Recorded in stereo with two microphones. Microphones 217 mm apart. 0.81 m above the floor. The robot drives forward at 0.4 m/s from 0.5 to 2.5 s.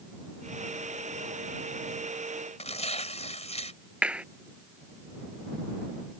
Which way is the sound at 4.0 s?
5° right (ahead or behind).